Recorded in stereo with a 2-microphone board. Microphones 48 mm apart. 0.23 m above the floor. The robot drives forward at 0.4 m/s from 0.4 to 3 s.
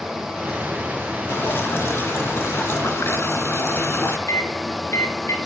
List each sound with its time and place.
1.3 s dripping: 50° left (ahead or behind), 2.5 m; by 4.2 s 60° left (ahead or behind), 2 m
4.3 s a microwave: 70° left (ahead or behind), 3 m